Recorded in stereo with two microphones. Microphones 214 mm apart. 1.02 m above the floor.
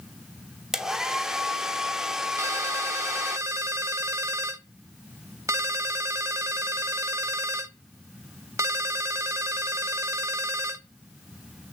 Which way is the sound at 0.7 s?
Centre (ahead or behind).